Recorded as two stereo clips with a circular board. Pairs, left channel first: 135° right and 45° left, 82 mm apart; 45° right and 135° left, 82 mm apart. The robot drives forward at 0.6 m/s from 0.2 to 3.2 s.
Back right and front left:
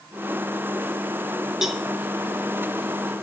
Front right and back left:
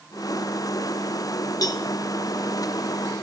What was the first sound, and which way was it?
A cowbell, 40° right.